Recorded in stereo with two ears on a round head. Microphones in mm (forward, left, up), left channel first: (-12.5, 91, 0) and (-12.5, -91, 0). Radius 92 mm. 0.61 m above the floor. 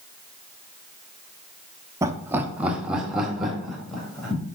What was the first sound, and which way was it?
Laughter, 15° right (ahead or behind).